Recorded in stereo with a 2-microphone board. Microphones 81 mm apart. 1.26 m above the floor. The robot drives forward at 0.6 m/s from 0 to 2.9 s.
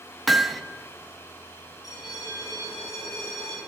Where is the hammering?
Centre (ahead or behind), 0.6 m.